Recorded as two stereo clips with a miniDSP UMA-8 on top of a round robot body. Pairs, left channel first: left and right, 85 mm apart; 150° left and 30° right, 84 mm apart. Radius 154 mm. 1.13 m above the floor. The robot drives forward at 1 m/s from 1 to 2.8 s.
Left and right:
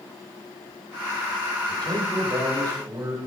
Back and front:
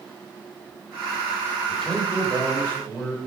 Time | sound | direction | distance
1.7 | a man speaking | 125° right | 5.5 m